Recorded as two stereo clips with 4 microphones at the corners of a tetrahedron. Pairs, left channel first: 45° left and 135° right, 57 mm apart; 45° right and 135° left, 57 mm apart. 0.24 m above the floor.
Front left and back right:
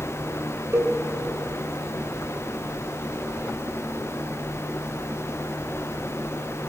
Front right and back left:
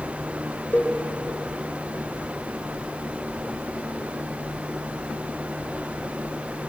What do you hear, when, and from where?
0.7 s a cowbell: 95° right, 3 m